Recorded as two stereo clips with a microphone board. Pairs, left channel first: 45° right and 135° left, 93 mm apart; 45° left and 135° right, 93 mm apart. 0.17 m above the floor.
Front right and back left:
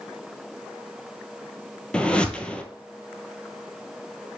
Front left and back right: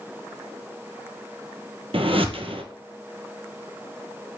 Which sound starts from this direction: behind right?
A whoosh, at 1.9 s.